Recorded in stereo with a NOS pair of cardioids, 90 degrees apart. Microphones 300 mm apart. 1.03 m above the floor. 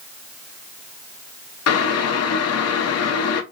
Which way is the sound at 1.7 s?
55° left.